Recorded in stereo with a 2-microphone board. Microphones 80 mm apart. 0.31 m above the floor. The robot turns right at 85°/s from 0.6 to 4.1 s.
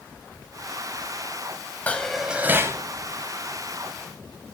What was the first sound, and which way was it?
Dishes clattering, 155° left.